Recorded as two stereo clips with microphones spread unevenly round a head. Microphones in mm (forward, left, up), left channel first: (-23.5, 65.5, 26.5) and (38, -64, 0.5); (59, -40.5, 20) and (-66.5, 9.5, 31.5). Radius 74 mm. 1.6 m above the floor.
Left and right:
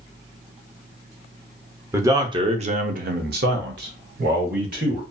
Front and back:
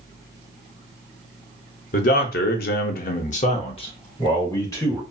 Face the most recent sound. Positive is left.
turn(degrees=-90)